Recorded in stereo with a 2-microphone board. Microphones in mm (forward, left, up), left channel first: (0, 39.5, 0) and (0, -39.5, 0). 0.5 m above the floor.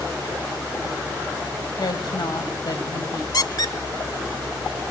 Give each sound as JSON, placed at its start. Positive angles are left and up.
{"t": 1.8, "sound": "a woman speaking", "side_deg": 60, "distance_m": 2.5}
{"t": 3.3, "sound": "a squeak", "side_deg": 55, "distance_m": 0.9}